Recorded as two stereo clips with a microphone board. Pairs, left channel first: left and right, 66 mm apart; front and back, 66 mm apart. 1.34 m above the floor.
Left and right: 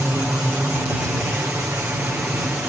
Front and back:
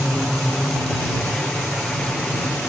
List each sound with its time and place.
0.0 s a helicopter: 65° right